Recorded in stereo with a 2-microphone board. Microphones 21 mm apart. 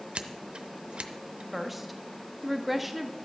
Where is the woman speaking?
5° right (ahead or behind), 1.0 m.